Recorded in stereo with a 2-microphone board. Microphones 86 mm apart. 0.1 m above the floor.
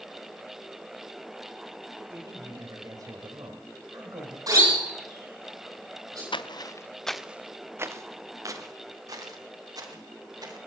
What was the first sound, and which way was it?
A man speaking, 40° right (ahead or behind).